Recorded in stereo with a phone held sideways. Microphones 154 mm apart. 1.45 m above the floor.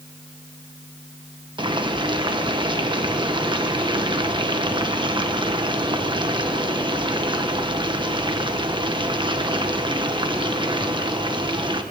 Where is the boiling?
30° right (ahead or behind), 1.4 m.